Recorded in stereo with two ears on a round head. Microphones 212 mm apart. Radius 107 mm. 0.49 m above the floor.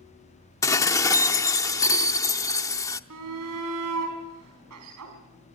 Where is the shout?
75° right (ahead or behind), 5 m.